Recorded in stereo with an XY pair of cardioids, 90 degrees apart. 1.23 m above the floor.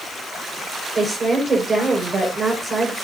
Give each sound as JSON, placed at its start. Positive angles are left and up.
{"t": 0.9, "sound": "a woman speaking", "azimuth_deg": -35, "distance_m": 5.0}